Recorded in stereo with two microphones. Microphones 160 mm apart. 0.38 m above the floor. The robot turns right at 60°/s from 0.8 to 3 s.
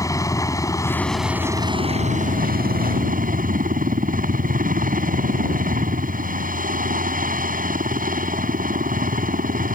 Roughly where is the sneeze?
I don't hear a sneeze.